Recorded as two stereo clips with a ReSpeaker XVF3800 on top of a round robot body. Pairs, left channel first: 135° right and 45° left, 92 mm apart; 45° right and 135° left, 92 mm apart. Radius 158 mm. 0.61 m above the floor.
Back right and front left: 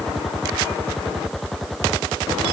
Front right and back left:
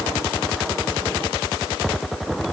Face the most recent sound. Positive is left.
No sound to turn to.